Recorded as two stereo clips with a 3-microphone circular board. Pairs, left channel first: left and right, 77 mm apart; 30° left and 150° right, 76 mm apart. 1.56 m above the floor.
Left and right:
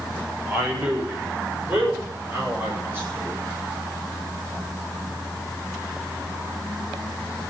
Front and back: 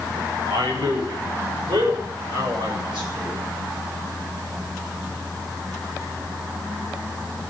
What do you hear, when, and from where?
0.5 s a man speaking: 160° right, 7 m; by 3.4 s 150° right, 8.5 m